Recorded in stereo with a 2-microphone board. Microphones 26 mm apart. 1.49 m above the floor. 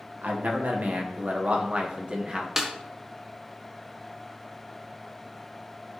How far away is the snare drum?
About 1.1 m.